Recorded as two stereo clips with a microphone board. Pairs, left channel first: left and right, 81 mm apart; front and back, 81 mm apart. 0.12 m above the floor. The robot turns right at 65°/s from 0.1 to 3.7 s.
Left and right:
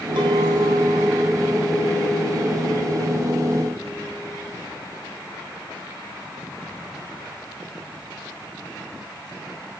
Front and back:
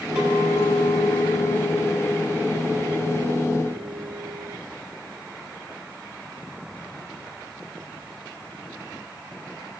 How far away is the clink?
About 2.5 m.